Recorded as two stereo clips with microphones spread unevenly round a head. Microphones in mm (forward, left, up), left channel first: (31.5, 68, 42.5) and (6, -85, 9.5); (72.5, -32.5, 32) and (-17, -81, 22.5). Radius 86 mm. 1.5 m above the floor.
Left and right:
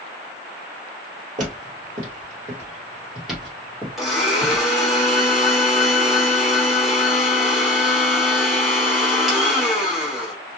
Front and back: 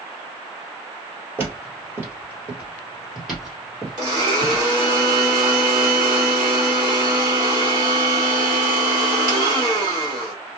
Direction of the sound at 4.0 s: 155° left.